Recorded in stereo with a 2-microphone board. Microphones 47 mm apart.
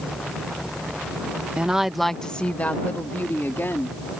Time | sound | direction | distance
1.6 | a woman speaking | 25° right (ahead or behind) | ?